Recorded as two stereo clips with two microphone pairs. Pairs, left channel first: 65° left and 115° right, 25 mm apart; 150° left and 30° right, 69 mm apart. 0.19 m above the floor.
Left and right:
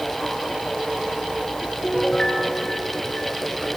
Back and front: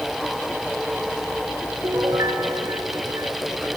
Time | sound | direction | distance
1.8 | a piano | 5° left | 3 m